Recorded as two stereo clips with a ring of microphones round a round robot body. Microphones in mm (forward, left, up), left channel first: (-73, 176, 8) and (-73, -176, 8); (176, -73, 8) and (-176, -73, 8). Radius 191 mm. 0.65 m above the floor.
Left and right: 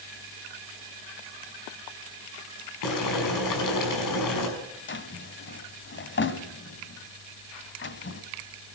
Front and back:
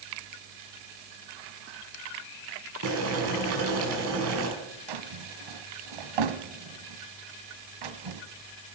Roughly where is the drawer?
Behind left.